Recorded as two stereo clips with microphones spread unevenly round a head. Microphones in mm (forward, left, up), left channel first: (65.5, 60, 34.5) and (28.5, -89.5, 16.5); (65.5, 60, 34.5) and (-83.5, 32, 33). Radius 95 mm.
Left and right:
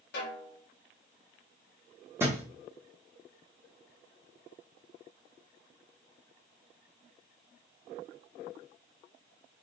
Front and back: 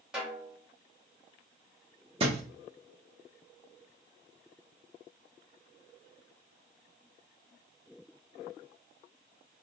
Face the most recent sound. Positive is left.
turn(degrees=175)